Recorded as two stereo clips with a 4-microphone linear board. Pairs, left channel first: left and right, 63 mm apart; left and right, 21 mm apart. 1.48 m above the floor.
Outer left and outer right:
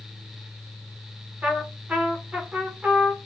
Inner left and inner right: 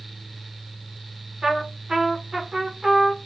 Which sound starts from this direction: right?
A trumpet, at 1.4 s.